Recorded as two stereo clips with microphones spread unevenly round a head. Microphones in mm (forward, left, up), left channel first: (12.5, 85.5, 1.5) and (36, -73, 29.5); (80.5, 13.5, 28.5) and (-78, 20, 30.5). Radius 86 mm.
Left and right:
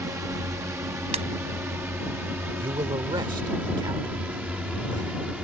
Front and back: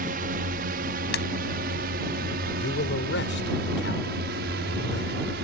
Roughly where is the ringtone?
Ahead right.